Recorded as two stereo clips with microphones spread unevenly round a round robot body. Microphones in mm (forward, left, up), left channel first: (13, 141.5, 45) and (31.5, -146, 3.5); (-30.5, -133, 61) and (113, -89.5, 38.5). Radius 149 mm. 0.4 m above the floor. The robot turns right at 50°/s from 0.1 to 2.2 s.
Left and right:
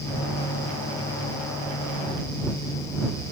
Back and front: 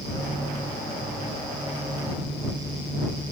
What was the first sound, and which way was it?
Only background noise.